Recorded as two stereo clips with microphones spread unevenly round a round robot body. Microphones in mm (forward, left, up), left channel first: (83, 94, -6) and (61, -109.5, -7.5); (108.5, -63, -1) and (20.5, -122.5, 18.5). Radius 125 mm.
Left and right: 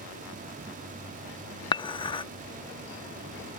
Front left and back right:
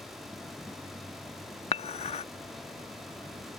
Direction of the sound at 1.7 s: 15° left.